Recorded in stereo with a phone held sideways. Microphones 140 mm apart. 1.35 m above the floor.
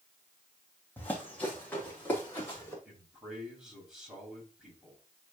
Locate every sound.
1.0 s running footsteps: 15° left (ahead or behind), 2.5 m
2.9 s a man speaking: 5° right (ahead or behind), 3.5 m